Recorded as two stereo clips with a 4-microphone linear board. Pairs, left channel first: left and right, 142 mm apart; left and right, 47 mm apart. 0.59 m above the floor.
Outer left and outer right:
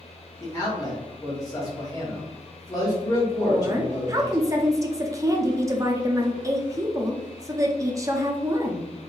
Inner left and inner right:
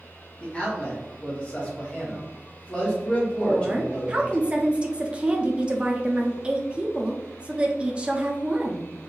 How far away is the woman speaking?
About 0.6 m.